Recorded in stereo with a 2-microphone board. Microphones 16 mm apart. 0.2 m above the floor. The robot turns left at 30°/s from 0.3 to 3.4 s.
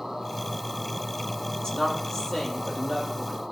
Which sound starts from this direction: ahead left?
A woman speaking, at 1.6 s.